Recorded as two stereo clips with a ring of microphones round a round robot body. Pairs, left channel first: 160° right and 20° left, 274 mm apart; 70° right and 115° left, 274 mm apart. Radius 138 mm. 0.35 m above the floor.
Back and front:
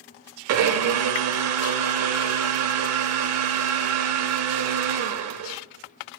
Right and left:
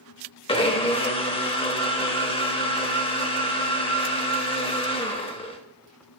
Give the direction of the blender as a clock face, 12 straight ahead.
12 o'clock.